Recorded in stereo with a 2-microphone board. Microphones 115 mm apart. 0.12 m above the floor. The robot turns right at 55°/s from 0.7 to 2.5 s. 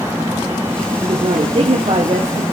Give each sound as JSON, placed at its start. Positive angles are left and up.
{"t": 1.0, "sound": "a woman speaking", "azimuth_deg": -130, "distance_m": 2.0}